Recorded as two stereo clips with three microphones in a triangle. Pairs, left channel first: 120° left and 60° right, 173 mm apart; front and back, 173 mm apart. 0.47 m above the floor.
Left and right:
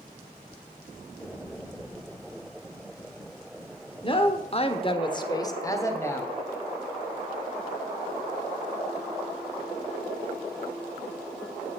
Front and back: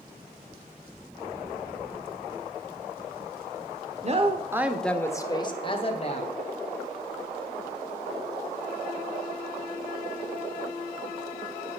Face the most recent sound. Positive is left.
turn(degrees=45)